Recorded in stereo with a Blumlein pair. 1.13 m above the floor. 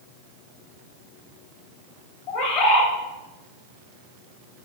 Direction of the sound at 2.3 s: 40° left.